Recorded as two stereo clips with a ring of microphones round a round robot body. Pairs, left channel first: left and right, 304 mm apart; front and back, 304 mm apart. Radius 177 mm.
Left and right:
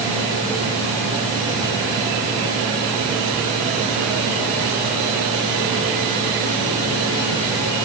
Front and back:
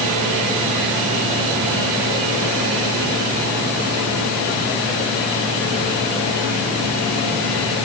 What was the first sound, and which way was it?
Only background noise.